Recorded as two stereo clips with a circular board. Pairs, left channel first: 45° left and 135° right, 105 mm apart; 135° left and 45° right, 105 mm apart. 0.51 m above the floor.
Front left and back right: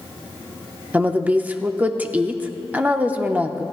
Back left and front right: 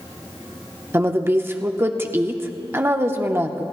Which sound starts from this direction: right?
A woman speaking, at 0.9 s.